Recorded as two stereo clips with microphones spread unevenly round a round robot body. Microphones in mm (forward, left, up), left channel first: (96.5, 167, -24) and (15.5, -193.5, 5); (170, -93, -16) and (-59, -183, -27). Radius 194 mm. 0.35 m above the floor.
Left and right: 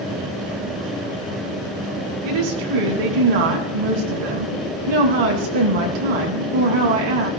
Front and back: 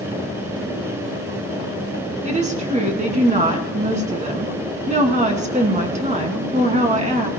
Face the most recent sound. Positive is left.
turn(degrees=-100)